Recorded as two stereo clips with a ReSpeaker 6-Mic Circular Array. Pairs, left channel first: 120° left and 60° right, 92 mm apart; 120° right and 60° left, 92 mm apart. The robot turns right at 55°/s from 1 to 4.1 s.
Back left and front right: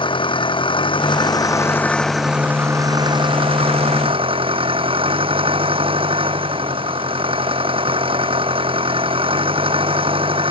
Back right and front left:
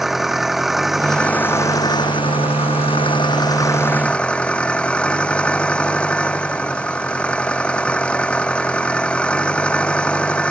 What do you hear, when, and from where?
0.0 s an engine running: 145° left; by 10.5 s 45° right